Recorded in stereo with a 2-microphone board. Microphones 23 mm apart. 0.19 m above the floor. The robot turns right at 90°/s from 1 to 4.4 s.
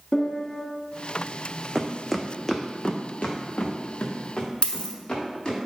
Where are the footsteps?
10° right (ahead or behind), 0.6 m; by 5.6 s 40° left (ahead or behind), 2.5 m.